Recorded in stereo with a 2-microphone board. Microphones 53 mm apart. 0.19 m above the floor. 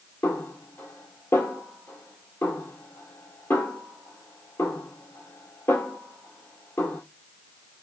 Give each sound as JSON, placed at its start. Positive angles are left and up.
{"t": 0.2, "sound": "a snare drum", "side_deg": 60, "distance_m": 2.0}